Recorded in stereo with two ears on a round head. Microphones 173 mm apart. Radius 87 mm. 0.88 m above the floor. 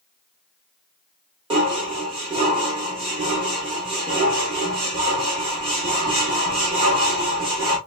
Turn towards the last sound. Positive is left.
turn(degrees=-30)  # may be behind; listen again after turning